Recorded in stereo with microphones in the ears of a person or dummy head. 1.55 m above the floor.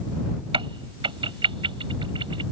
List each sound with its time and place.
0.5 s a crack: 25° right (ahead or behind)